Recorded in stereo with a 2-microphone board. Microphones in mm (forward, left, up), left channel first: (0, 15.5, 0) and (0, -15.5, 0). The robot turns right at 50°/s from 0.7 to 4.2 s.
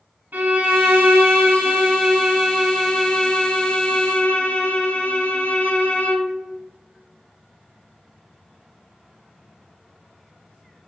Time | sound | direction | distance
0.3 | a violin | 100° right | 0.7 m